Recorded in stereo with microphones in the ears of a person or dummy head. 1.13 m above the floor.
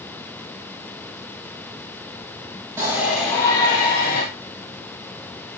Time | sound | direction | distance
2.8 | a shout | 20° right (ahead or behind) | 1.6 m